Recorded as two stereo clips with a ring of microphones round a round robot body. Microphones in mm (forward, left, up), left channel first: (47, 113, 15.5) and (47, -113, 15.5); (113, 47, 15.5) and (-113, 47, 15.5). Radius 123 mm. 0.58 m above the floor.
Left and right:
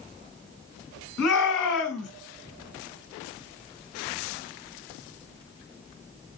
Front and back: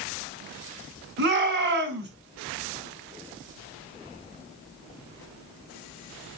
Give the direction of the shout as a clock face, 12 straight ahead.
7 o'clock.